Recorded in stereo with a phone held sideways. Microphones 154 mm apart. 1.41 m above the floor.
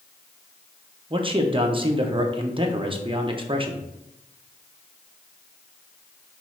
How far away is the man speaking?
About 0.6 m.